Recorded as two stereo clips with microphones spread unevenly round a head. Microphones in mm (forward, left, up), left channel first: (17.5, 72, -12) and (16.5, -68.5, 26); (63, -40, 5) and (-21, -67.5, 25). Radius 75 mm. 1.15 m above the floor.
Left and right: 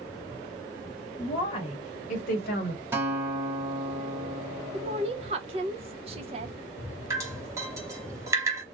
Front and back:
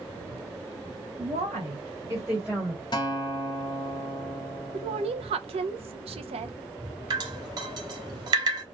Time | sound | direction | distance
1.2 | a woman speaking | 155° left | 1.0 m
2.9 | a guitar | 25° right | 0.9 m
4.7 | a woman speaking | 150° right | 0.6 m
7.1 | dripping | 150° right | 0.7 m